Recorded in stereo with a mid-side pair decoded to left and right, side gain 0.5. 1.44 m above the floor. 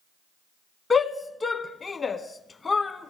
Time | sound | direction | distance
0.9 | a shout | 30° left | 1.5 m